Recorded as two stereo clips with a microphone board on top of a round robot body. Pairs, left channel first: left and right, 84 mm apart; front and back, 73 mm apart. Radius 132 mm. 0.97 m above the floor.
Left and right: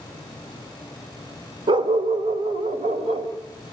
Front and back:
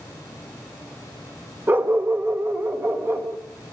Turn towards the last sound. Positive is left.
turn(degrees=-120)